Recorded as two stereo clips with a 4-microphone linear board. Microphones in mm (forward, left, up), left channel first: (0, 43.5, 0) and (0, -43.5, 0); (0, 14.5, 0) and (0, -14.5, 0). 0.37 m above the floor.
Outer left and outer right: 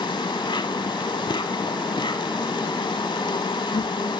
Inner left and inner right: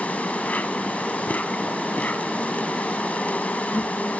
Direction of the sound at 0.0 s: 65° left (ahead or behind).